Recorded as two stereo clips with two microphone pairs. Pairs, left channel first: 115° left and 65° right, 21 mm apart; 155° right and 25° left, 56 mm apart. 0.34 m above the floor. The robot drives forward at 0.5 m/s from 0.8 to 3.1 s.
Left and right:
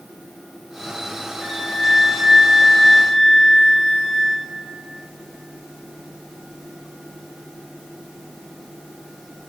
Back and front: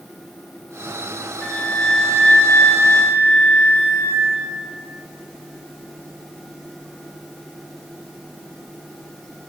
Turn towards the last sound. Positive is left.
turn(degrees=-160)